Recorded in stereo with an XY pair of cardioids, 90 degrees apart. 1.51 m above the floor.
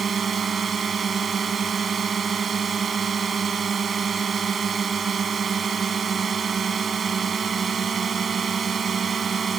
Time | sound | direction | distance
0.0 | a drone | 45° right | ?